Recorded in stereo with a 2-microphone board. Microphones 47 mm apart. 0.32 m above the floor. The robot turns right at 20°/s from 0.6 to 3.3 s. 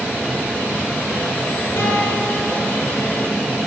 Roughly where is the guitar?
Left.